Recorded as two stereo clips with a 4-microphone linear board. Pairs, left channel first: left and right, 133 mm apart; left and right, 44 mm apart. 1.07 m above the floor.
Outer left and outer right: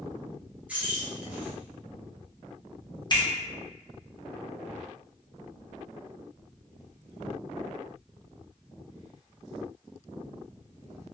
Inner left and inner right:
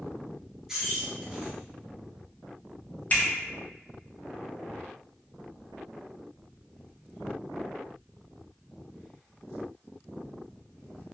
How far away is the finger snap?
About 0.7 m.